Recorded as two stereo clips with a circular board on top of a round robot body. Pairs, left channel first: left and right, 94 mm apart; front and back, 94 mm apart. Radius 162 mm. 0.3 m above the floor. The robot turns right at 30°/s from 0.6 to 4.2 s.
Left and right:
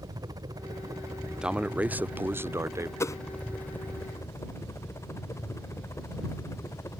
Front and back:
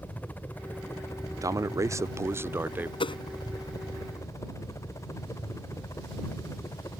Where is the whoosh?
30° left; by 3.2 s 35° left.